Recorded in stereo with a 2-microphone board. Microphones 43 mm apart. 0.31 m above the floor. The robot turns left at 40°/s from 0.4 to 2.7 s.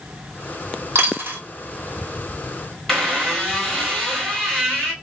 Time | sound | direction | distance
0.9 | a dropped coin | 80° right | 1.2 m
2.9 | a squeak | 10° left (ahead or behind) | 1.3 m